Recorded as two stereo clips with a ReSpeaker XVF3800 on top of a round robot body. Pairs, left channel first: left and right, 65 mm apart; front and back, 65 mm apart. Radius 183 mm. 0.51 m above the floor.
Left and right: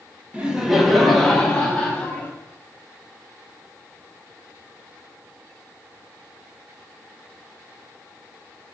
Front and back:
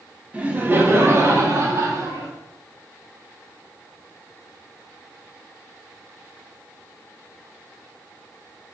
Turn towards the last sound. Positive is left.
turn(degrees=155)